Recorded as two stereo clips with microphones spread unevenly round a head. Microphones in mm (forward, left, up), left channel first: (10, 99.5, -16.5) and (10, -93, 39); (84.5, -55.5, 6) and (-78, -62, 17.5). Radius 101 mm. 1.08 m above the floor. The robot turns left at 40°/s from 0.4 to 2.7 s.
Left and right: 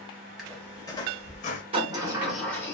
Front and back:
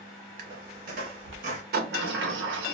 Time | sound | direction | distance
0.4 | a squeak | 165° right | 0.7 m
1.7 | a sliding door | 150° right | 0.7 m